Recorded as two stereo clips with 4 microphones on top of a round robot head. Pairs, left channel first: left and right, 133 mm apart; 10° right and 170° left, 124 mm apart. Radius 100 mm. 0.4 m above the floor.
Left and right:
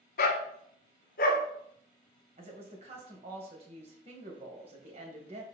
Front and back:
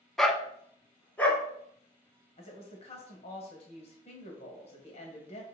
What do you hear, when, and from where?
0.2 s a dog barking: 80° left, 1.0 m; by 1.4 s 70° left, 1.8 m
2.4 s a woman speaking: 45° right, 2 m